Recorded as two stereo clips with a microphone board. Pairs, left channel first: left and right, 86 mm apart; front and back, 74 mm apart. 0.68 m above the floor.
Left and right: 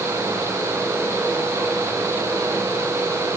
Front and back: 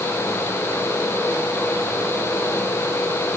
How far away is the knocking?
I don't hear knocking.